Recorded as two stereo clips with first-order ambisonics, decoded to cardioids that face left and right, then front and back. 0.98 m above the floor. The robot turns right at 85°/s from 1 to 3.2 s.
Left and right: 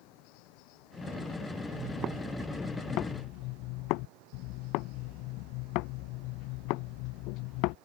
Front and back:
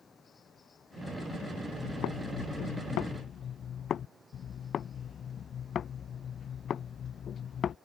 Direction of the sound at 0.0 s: 75° left.